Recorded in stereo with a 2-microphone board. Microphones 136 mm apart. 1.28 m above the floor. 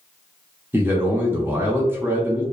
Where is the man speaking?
15° right (ahead or behind), 0.7 m.